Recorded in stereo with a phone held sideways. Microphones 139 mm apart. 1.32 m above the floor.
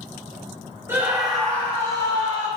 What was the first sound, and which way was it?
A scream, 15° right (ahead or behind).